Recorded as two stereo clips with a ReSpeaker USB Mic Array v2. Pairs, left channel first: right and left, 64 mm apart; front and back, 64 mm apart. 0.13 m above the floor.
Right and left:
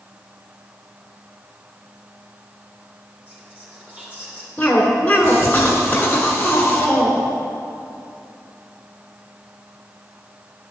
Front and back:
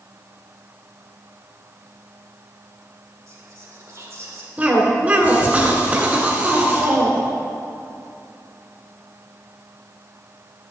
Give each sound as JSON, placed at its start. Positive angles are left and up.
{"t": 3.3, "sound": "whispering", "azimuth_deg": 150, "distance_m": 2.5}
{"t": 4.6, "sound": "a cough", "azimuth_deg": -135, "distance_m": 1.1}